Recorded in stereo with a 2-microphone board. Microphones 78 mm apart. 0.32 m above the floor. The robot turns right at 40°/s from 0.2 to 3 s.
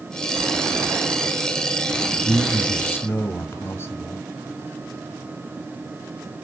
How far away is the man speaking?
About 1.4 m.